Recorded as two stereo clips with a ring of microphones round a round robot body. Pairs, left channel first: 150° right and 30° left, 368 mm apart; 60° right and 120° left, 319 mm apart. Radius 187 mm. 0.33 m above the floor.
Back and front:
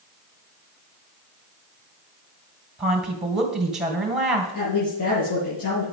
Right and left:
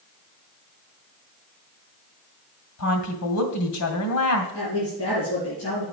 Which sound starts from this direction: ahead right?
A woman speaking, at 2.8 s.